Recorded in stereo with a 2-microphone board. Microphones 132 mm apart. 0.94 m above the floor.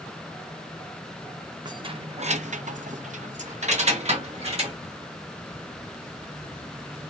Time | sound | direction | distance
1.6 | keys jangling | 35° right (ahead or behind) | 0.7 m